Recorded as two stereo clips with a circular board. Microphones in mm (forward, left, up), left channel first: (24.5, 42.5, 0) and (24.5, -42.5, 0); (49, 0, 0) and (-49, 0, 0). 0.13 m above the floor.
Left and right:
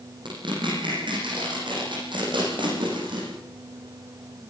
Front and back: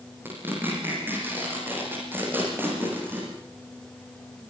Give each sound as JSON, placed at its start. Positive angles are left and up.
{"t": 0.2, "sound": "tearing paper", "azimuth_deg": -110, "distance_m": 9.0}